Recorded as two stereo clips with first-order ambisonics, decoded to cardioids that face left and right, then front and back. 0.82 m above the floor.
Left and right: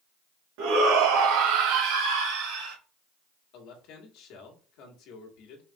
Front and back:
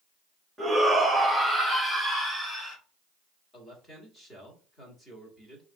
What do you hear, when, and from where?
0.6 s a shout: 100° right, 1.2 m; by 2.8 s 75° right, 2 m
3.5 s a man speaking: 75° left, 1.7 m